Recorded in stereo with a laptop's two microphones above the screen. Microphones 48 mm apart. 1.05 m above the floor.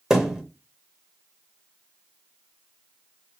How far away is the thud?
About 0.8 m.